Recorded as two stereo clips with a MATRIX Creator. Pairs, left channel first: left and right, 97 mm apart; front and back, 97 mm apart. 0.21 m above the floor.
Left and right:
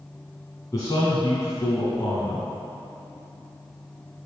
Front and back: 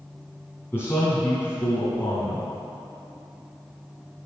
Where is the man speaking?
60° left, 1.9 m.